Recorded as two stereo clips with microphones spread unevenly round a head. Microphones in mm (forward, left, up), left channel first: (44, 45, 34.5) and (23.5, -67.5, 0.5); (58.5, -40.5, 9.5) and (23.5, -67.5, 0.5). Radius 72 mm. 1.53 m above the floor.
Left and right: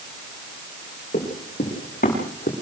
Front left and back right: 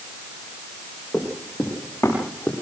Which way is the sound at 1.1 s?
120° left.